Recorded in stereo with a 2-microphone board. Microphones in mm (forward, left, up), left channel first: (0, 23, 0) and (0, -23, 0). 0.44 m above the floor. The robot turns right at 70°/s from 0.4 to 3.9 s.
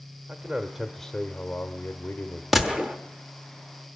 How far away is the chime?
No chime in this recording.